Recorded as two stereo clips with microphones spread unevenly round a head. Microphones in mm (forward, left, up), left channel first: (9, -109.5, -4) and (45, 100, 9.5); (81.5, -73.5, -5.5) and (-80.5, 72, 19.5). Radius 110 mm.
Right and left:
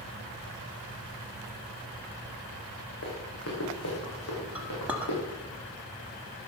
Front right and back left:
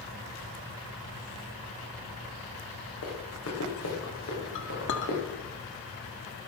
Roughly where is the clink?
Ahead.